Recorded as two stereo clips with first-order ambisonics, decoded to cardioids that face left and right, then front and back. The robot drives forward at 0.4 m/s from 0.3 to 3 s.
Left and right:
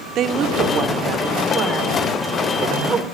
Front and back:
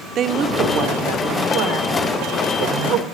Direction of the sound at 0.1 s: 135° right.